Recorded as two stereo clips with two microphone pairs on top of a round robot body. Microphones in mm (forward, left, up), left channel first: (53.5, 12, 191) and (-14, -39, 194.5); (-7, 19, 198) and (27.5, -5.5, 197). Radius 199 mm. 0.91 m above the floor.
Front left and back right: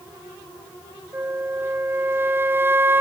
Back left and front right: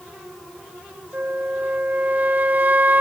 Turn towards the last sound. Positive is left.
turn(degrees=-80)